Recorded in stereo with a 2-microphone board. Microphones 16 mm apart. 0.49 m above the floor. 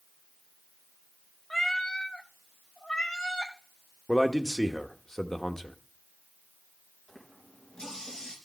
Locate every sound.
1.5 s a cat meowing: 20° left (ahead or behind), 0.8 m; by 3.5 s 55° left (ahead or behind), 1.7 m
4.1 s a man speaking: 30° left (ahead or behind), 0.8 m
7.1 s a running tap: 55° left (ahead or behind), 4 m